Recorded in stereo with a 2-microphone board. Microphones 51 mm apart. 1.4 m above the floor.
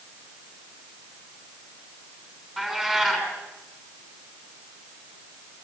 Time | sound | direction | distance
2.6 | a cat meowing | 15° right (ahead or behind) | 5.5 m